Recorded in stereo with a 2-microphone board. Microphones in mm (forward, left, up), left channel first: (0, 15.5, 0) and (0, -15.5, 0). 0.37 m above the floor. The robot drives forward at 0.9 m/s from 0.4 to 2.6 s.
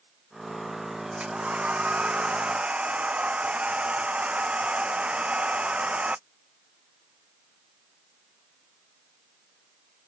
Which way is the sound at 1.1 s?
45° right (ahead or behind).